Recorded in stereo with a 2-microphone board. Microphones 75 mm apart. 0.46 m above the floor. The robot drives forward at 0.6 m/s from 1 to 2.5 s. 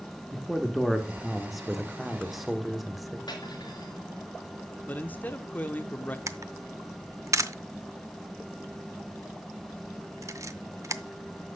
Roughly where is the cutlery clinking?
Left.